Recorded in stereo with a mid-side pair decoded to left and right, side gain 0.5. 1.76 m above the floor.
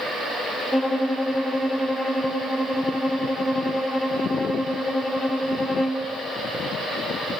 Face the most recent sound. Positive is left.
turn(degrees=5)